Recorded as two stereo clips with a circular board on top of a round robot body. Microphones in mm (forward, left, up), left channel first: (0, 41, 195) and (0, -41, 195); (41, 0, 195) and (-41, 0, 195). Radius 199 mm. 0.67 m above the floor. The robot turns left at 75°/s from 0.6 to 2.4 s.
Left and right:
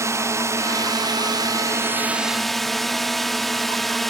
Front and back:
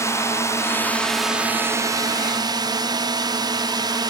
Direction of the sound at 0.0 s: 45° right.